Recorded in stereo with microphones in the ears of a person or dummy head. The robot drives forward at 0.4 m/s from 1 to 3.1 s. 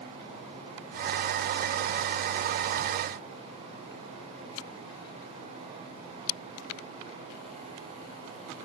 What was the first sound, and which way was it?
Only background noise.